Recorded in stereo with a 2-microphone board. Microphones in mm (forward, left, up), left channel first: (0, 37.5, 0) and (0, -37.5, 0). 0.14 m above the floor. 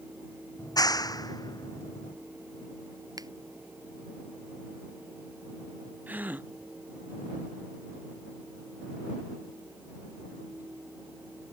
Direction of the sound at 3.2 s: 55° right (ahead or behind).